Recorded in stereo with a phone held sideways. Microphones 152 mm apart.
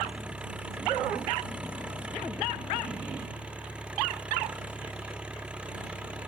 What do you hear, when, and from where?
0.0 s an engine running: 10° right (ahead or behind)